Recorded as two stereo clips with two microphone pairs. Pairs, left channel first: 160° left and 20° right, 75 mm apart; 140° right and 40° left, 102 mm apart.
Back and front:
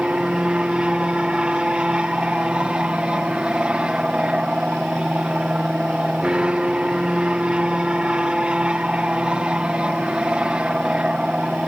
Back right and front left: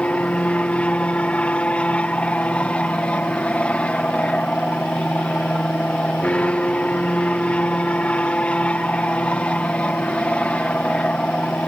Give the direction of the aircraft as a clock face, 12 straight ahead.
3 o'clock.